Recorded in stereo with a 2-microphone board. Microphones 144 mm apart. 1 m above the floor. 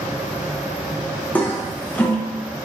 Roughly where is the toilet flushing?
Centre.